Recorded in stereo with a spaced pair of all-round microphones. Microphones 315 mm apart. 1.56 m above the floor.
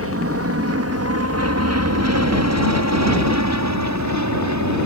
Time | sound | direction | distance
0.0 | an aircraft | 45° right (ahead or behind) | ?